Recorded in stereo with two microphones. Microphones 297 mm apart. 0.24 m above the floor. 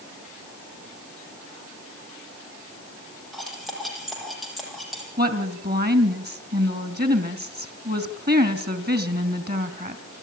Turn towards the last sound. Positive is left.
turn(degrees=-30)  # may be behind; listen again after turning